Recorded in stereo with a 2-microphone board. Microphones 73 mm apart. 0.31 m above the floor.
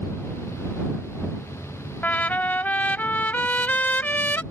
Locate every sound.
2.0 s a trumpet: 25° left (ahead or behind)